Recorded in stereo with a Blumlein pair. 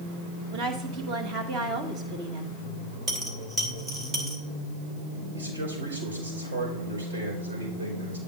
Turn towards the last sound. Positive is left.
turn(degrees=-70)